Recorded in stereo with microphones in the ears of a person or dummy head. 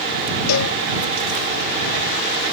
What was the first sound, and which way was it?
A cowbell, 85° left.